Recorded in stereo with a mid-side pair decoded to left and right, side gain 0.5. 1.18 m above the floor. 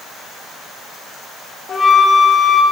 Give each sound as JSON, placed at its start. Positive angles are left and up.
{"t": 1.7, "sound": "a flute", "azimuth_deg": 35, "distance_m": 1.3}